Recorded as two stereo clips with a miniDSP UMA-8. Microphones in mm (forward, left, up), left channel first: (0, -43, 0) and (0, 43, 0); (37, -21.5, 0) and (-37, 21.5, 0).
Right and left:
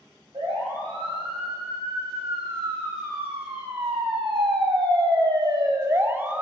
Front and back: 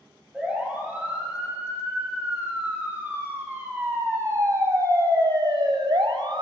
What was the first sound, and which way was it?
A siren, 75° left.